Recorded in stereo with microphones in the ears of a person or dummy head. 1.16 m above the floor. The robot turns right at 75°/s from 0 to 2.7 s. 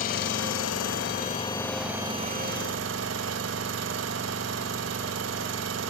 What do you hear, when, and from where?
0.0 s an engine running: 45° left, 1.2 m; by 5.9 s 110° right, 1.2 m